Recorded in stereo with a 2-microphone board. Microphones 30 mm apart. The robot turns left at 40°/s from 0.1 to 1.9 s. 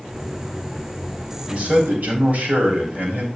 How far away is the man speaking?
About 4 m.